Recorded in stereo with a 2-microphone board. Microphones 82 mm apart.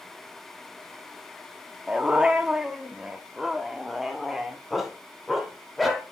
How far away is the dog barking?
About 1.0 m.